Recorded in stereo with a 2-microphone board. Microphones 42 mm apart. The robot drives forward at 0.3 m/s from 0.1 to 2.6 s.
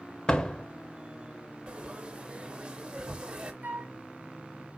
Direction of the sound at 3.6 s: 50° right (ahead or behind).